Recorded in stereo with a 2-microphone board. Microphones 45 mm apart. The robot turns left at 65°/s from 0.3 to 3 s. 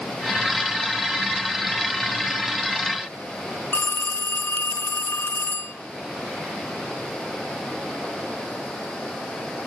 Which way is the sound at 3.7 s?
50° left (ahead or behind).